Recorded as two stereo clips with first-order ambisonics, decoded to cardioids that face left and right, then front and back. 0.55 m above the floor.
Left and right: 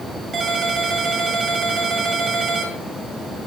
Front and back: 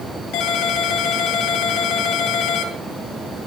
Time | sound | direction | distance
0.3 | a ringtone | 30° right | 2.5 m